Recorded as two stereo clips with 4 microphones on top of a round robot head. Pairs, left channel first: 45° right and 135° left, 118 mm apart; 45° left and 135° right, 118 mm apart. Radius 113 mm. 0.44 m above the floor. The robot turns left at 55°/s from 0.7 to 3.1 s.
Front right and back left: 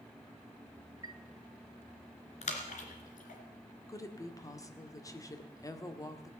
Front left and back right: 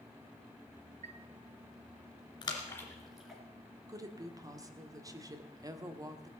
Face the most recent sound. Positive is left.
turn(degrees=-90)